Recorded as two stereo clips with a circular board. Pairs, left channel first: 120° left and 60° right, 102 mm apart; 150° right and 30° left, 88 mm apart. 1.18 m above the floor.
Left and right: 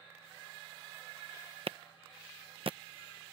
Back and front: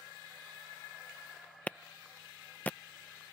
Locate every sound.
1.7 s a clap: 80° right